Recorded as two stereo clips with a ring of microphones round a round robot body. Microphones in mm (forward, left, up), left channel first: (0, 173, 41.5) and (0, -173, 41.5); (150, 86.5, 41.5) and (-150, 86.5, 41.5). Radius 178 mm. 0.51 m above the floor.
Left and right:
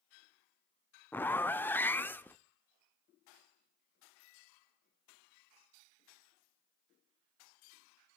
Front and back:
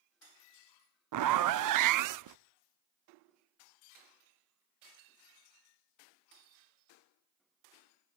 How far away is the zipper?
About 0.7 m.